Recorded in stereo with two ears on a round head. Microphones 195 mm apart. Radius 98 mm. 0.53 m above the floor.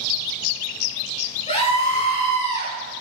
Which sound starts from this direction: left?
A scream, at 1.5 s.